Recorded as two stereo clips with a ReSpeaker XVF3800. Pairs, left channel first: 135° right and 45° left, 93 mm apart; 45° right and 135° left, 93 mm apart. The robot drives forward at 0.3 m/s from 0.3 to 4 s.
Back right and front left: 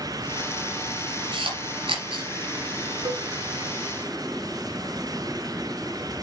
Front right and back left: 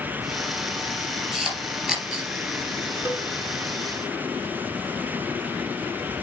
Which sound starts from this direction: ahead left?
A camera shutter, at 1.3 s.